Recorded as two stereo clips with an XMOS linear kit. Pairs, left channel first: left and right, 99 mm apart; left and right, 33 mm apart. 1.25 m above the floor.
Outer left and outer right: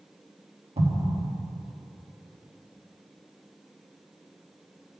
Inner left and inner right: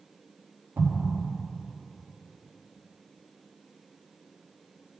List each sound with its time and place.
0.8 s an explosion: 80° right, 1.5 m